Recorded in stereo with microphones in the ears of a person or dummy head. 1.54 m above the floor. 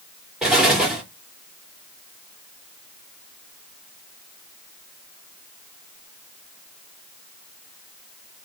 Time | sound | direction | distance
0.4 | an explosion | centre (ahead or behind) | 1.7 m